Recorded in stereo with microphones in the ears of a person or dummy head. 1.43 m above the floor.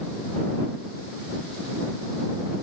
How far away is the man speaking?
No man speaking in this recording.